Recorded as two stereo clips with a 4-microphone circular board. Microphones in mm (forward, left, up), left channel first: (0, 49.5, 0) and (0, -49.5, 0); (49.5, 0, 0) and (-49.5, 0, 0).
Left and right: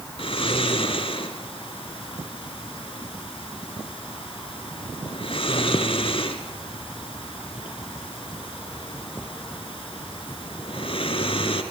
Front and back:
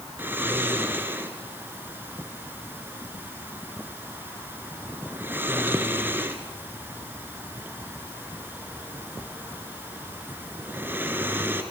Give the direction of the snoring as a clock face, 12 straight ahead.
8 o'clock.